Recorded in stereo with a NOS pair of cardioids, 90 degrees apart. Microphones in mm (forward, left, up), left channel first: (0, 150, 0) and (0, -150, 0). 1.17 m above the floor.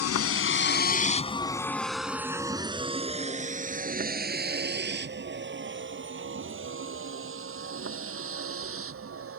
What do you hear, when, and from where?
0.0 s a vehicle: 55° left; by 9.4 s 50° right